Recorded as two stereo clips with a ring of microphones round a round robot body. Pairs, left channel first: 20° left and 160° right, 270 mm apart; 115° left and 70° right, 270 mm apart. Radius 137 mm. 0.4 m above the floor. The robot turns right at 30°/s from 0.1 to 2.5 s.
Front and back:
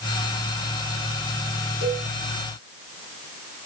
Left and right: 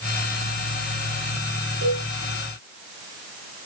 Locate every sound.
1.8 s a cowbell: 25° right, 1.9 m; by 2.1 s 15° right, 1.9 m